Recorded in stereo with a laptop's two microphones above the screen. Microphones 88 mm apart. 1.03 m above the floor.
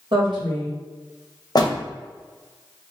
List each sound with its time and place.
0.1 s a woman speaking: 70° right (ahead or behind), 1.2 m
1.6 s a door slam: 50° left (ahead or behind), 0.5 m